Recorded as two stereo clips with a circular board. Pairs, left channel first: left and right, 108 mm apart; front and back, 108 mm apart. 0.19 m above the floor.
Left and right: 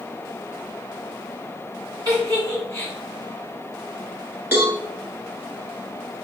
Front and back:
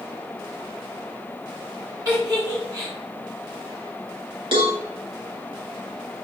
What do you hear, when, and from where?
2.0 s a giggle: 135° right, 1.9 m
4.5 s a cowbell: 160° right, 1.5 m